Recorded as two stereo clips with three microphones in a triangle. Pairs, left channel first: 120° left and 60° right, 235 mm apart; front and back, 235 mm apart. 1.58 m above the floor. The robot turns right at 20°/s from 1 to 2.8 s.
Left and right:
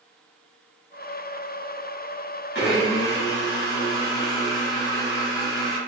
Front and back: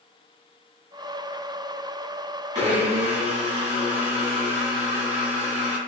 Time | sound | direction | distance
2.5 | a blender | 125° left | 1.1 m